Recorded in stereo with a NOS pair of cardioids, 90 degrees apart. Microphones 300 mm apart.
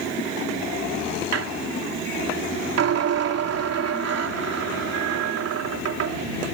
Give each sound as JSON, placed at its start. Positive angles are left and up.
{"t": 1.3, "sound": "a squeak", "azimuth_deg": -55}